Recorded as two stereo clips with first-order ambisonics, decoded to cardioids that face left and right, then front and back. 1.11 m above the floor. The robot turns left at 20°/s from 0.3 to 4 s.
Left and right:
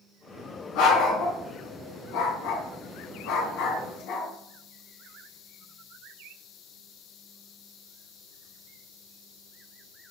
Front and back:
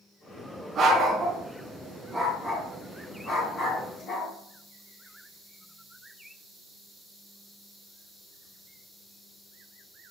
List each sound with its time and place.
0.8 s a dog barking: 115° left, 3.5 m; by 4.3 s 50° left, 3.5 m